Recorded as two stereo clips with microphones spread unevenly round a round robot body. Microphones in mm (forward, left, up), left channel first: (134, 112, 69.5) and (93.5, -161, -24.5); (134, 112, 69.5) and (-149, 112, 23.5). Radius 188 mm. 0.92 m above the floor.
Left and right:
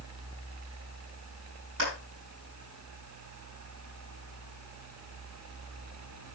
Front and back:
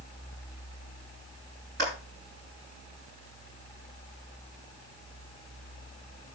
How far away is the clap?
About 10 m.